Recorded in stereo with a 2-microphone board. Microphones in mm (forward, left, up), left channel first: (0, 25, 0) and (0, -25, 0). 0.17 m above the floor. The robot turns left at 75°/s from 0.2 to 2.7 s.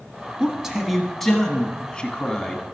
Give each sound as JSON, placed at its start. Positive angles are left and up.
{"t": 0.4, "sound": "a man speaking", "side_deg": -15, "distance_m": 1.1}